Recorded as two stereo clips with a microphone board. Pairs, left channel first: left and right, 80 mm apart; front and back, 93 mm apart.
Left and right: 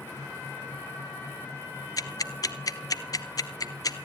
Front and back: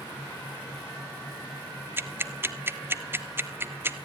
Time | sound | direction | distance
2.0 | ticking | 115° left | 0.8 m